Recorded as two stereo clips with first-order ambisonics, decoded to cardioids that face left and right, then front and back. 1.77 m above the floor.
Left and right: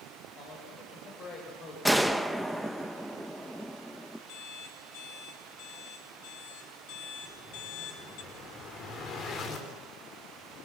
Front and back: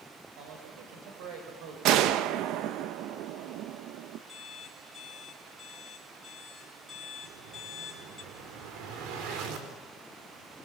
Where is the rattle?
No rattle in this recording.